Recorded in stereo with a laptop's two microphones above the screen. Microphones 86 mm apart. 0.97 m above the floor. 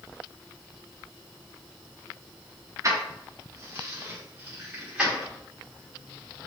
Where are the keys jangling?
40° right (ahead or behind), 1.5 m; by 5.3 s 10° right (ahead or behind), 2.5 m.